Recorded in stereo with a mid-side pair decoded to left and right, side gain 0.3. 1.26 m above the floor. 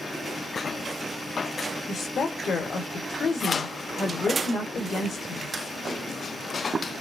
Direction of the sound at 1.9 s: 65° left.